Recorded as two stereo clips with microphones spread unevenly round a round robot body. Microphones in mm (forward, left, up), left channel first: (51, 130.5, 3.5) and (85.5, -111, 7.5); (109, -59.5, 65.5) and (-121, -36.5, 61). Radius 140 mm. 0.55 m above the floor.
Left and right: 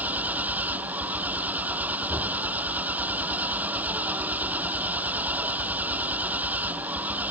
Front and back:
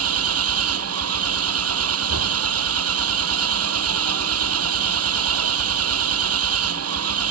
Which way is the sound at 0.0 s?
165° right.